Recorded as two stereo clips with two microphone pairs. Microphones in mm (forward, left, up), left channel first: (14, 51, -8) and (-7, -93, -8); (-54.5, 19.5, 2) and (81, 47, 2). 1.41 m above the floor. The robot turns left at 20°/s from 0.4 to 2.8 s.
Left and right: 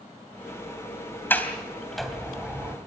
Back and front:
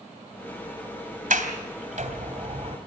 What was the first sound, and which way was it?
A sliding door, 5° left.